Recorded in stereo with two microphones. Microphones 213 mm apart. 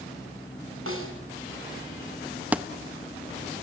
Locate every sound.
0.9 s a snare drum: 75° right (ahead or behind), 4 m
2.5 s a thud: 5° right (ahead or behind), 1.0 m